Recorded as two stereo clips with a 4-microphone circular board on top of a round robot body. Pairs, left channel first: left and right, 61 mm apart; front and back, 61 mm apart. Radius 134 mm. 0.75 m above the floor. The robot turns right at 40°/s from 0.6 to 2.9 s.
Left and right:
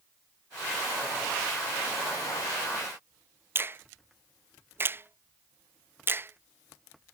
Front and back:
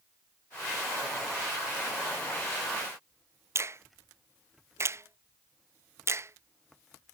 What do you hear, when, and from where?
3.5 s a finger snap: 140° right